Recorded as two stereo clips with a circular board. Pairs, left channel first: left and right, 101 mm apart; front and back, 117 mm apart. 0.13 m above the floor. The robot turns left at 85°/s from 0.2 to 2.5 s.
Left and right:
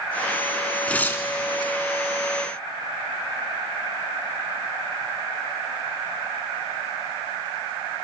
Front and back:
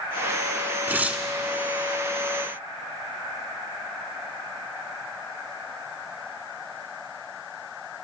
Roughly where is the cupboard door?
I don't hear a cupboard door.